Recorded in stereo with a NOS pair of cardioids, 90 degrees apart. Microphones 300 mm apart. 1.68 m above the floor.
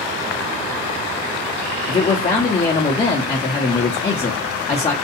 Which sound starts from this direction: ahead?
A man speaking, at 1.9 s.